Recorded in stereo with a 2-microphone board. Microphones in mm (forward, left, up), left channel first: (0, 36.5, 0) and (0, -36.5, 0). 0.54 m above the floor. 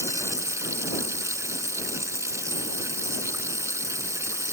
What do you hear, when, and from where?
0.0 s running water: 45° right (ahead or behind)